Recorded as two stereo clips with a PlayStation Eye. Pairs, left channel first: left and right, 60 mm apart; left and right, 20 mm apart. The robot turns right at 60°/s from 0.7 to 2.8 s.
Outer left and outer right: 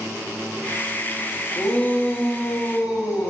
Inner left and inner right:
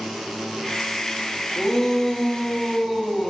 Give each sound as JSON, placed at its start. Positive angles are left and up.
{"t": 1.6, "sound": "a shout", "azimuth_deg": 10, "distance_m": 2.0}